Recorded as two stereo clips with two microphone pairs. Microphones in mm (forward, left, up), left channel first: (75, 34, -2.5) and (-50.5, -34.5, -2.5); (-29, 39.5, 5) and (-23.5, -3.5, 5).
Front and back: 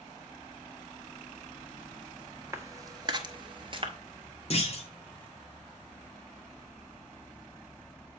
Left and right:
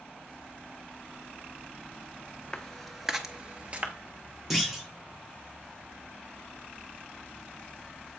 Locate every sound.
2.5 s footsteps: 150° left, 0.8 m; by 3.9 s 115° right, 0.9 m
4.5 s a clunk: straight ahead, 1.1 m